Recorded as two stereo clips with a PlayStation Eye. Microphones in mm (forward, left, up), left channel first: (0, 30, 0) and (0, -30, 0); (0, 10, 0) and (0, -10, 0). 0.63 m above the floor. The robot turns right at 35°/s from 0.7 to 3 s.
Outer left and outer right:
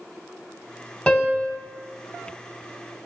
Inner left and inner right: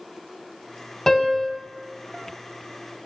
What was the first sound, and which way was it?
A piano, 15° left (ahead or behind).